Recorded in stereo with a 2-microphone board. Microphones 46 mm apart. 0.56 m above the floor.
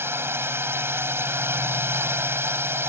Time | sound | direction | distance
0.0 | a drone | 60° right (ahead or behind) | ?